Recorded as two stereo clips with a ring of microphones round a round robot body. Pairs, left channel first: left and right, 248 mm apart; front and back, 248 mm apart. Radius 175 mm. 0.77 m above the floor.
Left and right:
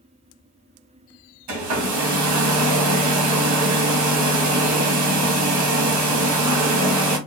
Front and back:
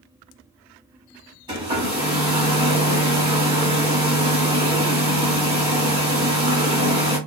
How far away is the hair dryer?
About 1.5 m.